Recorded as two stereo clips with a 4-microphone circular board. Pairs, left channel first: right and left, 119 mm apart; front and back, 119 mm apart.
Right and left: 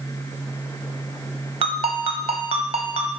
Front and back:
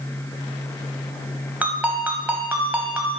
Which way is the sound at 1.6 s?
105° left.